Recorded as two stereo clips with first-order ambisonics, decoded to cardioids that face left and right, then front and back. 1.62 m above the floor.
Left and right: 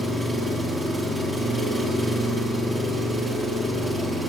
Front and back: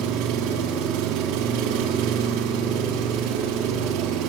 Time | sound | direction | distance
0.0 | an engine running | 175° right | 3 m